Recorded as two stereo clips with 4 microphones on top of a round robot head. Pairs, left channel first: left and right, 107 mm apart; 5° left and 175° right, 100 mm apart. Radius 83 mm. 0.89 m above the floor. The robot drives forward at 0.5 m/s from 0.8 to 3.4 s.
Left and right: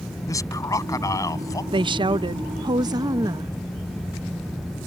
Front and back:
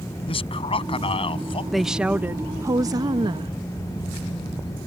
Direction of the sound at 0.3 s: 30° left.